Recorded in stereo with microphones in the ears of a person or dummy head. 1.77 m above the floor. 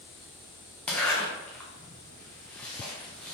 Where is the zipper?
10° left (ahead or behind), 1.5 m.